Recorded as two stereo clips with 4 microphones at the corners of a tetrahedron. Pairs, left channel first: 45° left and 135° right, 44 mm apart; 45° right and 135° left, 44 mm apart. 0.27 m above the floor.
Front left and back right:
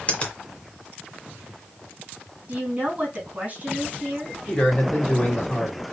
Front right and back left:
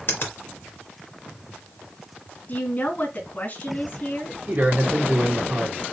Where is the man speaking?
110° left, 2.5 m.